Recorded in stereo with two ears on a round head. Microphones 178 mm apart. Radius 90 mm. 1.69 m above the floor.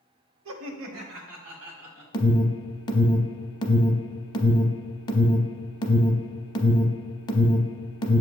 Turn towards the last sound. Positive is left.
turn(degrees=20)  # may be behind; listen again after turning